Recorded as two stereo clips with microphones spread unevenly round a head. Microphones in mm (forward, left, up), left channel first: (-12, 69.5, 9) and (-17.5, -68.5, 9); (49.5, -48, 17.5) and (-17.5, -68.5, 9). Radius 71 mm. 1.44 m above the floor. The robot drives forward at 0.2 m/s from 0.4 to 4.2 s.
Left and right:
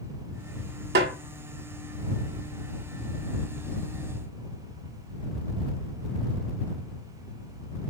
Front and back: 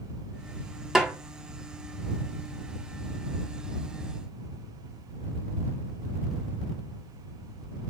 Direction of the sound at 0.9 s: 80° right.